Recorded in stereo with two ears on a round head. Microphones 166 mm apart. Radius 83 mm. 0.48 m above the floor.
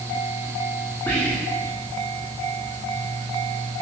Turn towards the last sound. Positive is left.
turn(degrees=10)  # may be behind; listen again after turning